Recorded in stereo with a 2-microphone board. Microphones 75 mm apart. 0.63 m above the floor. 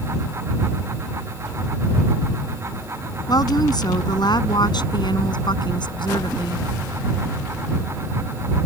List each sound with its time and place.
3.3 s a woman speaking: 55° left (ahead or behind); by 6.7 s 75° left (ahead or behind)